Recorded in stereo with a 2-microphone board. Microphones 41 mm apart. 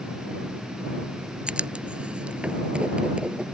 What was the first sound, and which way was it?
Writing, 25° right (ahead or behind).